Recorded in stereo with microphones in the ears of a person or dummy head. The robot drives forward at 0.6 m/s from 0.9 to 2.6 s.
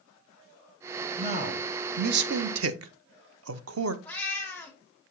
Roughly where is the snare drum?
I don't hear a snare drum.